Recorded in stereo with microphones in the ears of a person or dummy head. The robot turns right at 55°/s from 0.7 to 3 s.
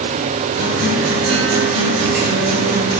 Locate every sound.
0.6 s a guitar: 140° right, 9.5 m; by 3.0 s 10° right, 9.5 m